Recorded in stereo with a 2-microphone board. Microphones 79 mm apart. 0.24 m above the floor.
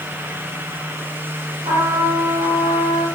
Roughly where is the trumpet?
Right.